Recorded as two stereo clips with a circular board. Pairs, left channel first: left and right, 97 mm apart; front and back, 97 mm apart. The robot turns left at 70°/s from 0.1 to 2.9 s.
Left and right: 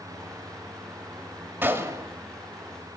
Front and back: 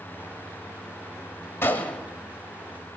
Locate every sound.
1.6 s a gunshot: 40° right, 0.9 m; by 2.0 s 75° right, 0.9 m